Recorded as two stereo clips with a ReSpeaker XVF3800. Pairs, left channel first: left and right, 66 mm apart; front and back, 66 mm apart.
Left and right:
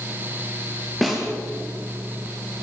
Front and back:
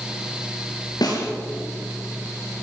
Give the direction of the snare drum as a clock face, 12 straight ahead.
12 o'clock.